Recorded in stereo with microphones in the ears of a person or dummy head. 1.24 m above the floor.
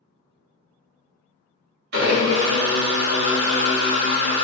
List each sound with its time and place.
1.9 s a blender: 55° right (ahead or behind), 1.4 m